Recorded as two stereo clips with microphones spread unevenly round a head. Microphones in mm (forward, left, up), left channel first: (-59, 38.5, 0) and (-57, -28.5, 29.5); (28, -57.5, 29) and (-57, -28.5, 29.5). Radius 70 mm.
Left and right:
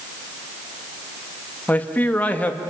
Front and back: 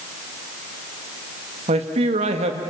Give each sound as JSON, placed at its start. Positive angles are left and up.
{"t": 1.7, "sound": "a man speaking", "azimuth_deg": 160, "distance_m": 1.9}